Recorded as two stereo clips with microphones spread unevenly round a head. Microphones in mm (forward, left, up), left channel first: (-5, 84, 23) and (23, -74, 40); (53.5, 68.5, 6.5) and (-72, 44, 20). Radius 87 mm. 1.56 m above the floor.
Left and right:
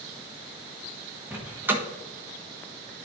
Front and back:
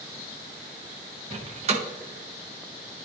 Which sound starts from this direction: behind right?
A door slam, at 1.3 s.